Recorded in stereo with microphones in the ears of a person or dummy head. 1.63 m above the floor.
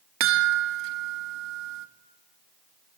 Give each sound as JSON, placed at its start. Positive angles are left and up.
{"t": 0.2, "sound": "a chime", "side_deg": -65, "distance_m": 1.9}